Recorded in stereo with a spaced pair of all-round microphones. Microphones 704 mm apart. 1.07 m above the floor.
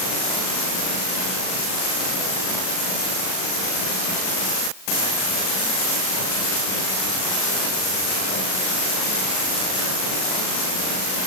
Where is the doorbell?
No doorbell in this recording.